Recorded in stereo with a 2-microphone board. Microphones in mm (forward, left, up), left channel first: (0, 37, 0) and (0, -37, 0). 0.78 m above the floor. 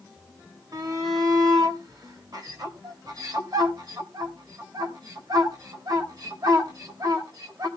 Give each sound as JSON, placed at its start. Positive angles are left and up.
{"t": 0.7, "sound": "a shout", "side_deg": -60, "distance_m": 3.5}